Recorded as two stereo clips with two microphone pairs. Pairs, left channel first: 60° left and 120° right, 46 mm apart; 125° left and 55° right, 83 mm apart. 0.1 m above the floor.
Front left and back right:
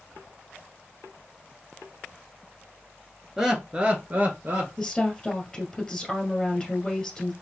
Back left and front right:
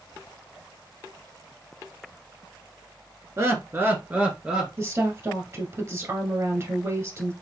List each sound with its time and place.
3.4 s laughter: 50° right, 1.3 m; by 4.7 s 140° right, 1.6 m
4.8 s a woman speaking: 15° right, 1.7 m